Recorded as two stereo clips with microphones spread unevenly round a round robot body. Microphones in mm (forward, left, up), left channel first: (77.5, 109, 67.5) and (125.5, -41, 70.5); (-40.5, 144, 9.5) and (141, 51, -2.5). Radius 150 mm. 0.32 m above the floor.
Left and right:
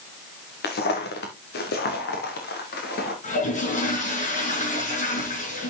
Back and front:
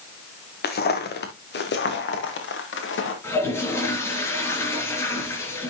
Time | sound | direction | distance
0.6 | footsteps | 115° left | 3 m
3.2 | a toilet flushing | 75° left | 5.5 m